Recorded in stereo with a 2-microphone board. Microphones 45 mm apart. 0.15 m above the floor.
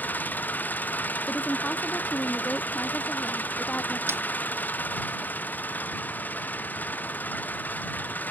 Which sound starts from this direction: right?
A snare drum, at 4.1 s.